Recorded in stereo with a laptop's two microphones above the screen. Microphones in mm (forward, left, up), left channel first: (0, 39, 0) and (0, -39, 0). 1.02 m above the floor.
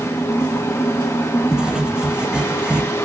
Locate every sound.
0.0 s a fan: 35° left (ahead or behind), 1.6 m
1.5 s writing: 10° right (ahead or behind), 1.7 m